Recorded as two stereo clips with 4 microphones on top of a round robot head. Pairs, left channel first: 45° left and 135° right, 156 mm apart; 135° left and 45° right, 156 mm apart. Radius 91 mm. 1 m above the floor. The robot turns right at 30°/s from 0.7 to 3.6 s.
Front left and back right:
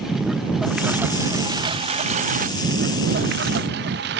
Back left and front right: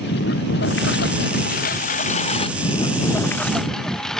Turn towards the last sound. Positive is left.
turn(degrees=-135)